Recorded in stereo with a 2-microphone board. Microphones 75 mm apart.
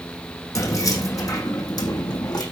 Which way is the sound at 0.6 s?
45° left (ahead or behind).